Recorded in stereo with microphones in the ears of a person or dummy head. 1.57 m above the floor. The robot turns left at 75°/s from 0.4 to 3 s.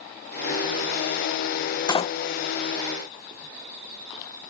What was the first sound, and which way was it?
A door slam, 20° left (ahead or behind).